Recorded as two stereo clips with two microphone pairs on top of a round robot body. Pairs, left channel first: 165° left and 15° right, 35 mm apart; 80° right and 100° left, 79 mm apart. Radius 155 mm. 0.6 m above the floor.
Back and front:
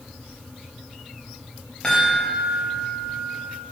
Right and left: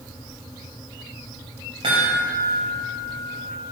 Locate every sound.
1.8 s a chime: 95° left, 0.6 m